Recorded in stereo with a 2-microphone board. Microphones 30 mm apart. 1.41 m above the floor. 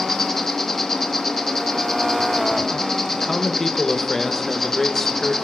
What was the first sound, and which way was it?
An insect, 10° left (ahead or behind).